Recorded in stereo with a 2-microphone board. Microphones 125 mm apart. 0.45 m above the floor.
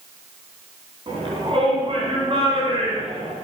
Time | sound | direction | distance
1.1 | a shout | 45° right (ahead or behind) | 4.5 m